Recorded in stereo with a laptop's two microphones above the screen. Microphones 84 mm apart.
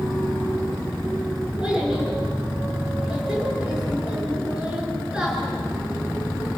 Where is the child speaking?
10° right (ahead or behind), 6.5 m.